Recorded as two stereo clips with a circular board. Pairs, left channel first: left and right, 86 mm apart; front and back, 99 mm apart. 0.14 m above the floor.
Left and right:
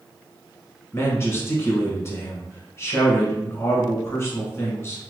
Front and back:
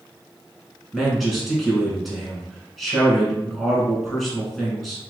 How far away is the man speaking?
About 1.1 m.